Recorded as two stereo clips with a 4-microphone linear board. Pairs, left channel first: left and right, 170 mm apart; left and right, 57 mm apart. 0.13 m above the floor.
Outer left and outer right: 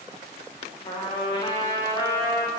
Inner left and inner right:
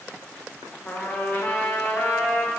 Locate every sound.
0.8 s a trumpet: 30° left (ahead or behind), 3.5 m